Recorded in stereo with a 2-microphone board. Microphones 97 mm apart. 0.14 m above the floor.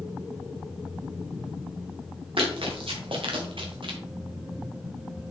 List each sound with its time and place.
2.4 s running footsteps: 70° right (ahead or behind), 3 m; by 4.0 s 60° right (ahead or behind), 1.7 m